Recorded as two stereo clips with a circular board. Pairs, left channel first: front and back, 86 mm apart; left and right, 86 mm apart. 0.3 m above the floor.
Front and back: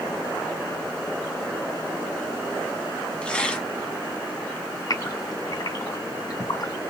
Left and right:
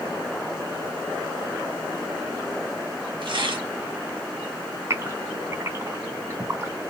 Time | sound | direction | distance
3.2 | tearing paper | 75° right | 1.5 m
4.9 | a gasp | 35° right | 2.5 m